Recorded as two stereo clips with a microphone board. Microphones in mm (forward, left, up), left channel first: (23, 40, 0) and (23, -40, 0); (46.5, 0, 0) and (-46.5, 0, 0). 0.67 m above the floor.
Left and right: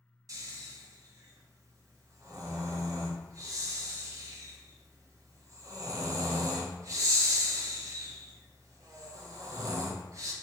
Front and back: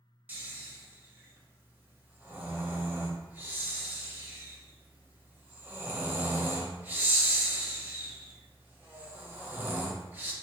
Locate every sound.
0.3 s snoring: 115° right, 0.6 m